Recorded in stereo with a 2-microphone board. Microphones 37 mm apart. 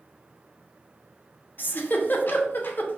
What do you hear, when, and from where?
1.6 s a giggle: 55° left (ahead or behind), 0.6 m